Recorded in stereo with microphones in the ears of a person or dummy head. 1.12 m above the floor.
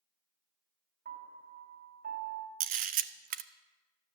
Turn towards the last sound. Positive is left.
turn(degrees=-40)  # may be behind; listen again after turning